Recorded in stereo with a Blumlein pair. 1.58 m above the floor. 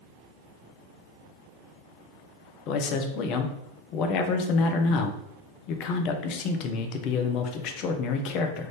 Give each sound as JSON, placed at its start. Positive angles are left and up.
{"t": 2.7, "sound": "a man speaking", "azimuth_deg": 40, "distance_m": 0.7}